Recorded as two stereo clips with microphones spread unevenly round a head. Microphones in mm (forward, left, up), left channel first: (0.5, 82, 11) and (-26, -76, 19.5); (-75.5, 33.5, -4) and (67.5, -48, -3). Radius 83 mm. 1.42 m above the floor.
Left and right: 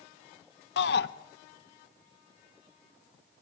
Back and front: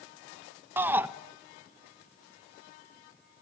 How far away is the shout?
About 1.2 m.